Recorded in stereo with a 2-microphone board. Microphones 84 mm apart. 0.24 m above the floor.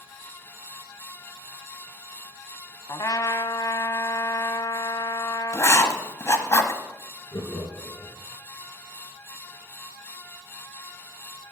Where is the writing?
35° left (ahead or behind), 1.1 m.